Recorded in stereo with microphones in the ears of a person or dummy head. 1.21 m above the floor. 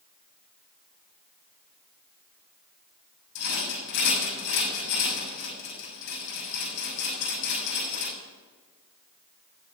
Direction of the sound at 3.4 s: 60° left (ahead or behind).